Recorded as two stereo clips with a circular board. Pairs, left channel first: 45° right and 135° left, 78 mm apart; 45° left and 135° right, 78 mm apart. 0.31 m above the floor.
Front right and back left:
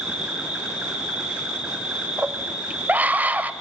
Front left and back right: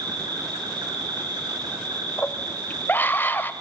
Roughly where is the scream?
Left.